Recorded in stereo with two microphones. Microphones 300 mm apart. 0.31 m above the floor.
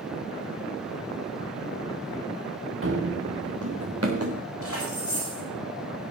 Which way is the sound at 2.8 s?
45° right (ahead or behind).